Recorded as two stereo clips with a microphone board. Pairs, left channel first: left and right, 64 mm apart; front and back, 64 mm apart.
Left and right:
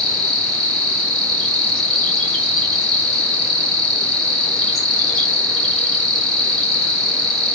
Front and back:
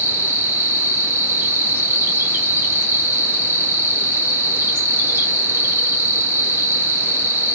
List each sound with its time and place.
0.0 s an insect: 165° left, 1.8 m